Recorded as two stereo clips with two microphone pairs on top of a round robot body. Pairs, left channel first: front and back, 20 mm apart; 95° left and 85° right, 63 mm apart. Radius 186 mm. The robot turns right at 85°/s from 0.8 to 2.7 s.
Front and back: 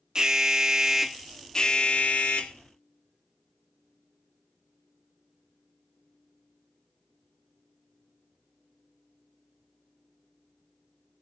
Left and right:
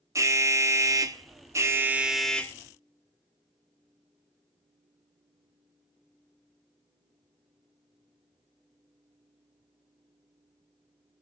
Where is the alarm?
120° right, 1.4 m; by 2.5 s 30° left, 1.4 m.